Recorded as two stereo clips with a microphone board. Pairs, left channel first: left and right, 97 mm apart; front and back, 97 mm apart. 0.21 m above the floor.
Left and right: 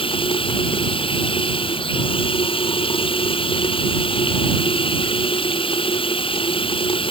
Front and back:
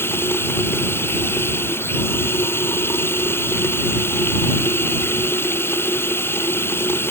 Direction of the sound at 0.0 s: 65° left.